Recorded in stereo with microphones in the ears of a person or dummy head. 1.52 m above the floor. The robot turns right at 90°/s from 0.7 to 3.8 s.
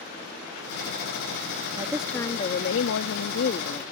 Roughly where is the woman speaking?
Ahead right.